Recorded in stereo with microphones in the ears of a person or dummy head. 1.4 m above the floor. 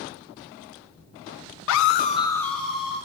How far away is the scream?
About 0.7 m.